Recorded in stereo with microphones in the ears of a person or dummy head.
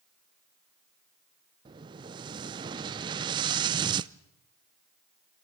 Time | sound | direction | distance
1.6 | an explosion | 30° right (ahead or behind) | 0.6 m